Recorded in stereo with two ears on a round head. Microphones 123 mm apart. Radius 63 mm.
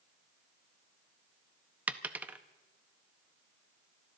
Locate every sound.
1.9 s a dropped coin: 10° right (ahead or behind), 0.6 m